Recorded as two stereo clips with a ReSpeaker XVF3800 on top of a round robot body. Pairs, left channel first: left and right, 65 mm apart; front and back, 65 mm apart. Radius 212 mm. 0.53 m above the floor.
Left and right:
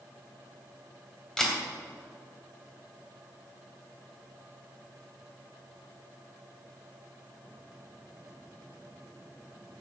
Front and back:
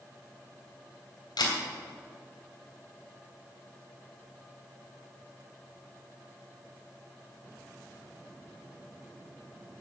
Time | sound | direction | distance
1.4 | a camera shutter | 5° left | 3 m